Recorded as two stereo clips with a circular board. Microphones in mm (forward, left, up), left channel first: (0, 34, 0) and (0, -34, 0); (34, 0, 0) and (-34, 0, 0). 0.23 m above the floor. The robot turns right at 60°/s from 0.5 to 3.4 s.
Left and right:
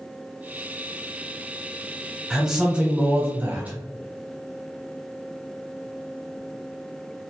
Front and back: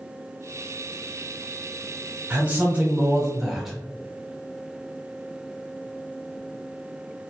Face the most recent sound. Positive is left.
turn(degrees=-105)